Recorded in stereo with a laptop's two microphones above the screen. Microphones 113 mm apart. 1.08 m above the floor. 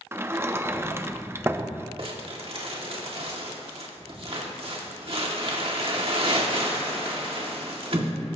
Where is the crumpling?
60° right (ahead or behind), 1.9 m.